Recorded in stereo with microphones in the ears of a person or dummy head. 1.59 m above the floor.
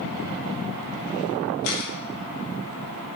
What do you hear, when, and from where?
1.6 s a camera shutter: 70° left (ahead or behind), 2 m